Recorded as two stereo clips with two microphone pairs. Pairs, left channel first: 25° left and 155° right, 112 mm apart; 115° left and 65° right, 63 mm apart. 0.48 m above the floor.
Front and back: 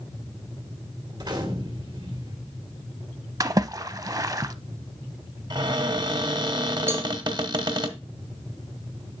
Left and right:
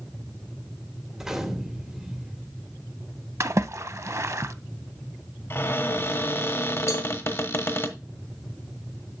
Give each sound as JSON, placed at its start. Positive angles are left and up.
{"t": 1.1, "sound": "a gunshot", "azimuth_deg": -140, "distance_m": 1.5}
{"t": 3.4, "sound": "a splash", "azimuth_deg": -100, "distance_m": 0.5}
{"t": 5.5, "sound": "a cupboard door", "azimuth_deg": 160, "distance_m": 1.2}
{"t": 6.9, "sound": "a cowbell", "azimuth_deg": 140, "distance_m": 1.1}